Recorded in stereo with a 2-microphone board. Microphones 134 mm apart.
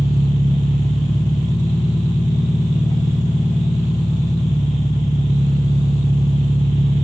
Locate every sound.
0.0 s an engine running: 30° left (ahead or behind), 0.8 m